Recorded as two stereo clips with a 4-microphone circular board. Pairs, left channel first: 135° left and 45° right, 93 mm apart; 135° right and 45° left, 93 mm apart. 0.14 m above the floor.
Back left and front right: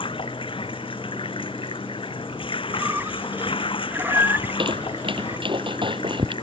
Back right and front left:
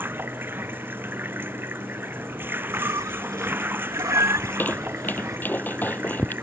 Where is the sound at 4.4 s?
65° right.